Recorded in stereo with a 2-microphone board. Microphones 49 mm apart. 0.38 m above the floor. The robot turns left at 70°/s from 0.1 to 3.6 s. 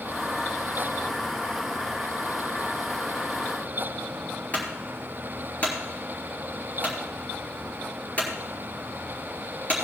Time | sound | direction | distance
4.5 | a clunk | 35° left (ahead or behind) | 4 m